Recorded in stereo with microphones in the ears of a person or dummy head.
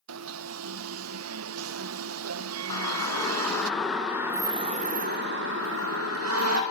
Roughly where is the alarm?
Right.